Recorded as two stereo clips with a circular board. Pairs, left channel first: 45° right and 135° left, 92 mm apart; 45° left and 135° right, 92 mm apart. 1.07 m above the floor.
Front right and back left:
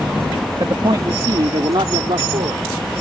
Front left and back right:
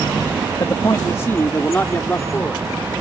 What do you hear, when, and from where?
0.6 s a man speaking: 95° left; by 2.6 s 120° left